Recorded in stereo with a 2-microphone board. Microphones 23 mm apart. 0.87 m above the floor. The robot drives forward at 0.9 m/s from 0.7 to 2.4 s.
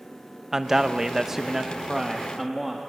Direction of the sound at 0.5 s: 20° right (ahead or behind).